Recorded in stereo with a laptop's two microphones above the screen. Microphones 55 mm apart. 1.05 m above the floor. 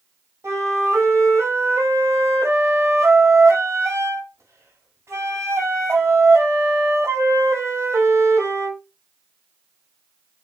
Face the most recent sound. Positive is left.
turn(degrees=-55)  # may be behind; listen again after turning